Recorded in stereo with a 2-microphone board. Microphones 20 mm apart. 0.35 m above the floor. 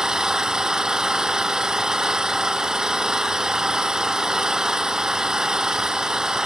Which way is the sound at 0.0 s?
30° right (ahead or behind).